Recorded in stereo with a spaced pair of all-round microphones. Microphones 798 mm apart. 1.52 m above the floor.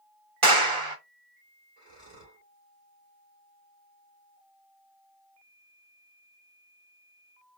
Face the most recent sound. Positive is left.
turn(degrees=-30)  # may be behind; listen again after turning